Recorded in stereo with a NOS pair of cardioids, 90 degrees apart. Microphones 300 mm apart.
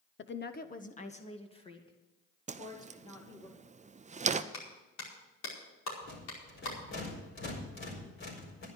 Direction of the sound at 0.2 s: 40° left.